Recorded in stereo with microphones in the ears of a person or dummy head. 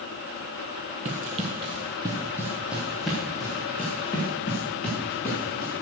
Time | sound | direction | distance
1.1 | running footsteps | 30° right (ahead or behind) | 1.6 m